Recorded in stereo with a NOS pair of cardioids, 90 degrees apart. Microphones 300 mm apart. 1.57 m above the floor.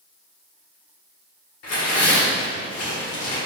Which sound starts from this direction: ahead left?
Tearing paper, at 1.6 s.